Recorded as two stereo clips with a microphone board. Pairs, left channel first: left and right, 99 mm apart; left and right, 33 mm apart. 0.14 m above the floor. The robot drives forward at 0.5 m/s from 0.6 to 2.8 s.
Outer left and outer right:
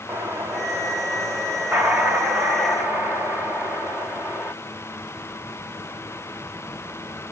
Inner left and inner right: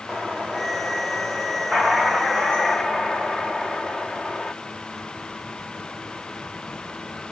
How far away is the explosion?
About 1.5 m.